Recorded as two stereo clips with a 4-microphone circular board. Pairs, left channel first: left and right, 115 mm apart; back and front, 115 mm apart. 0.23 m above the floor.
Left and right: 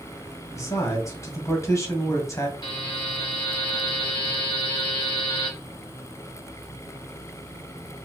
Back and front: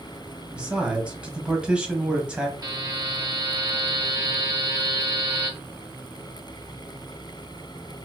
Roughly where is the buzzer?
Ahead left.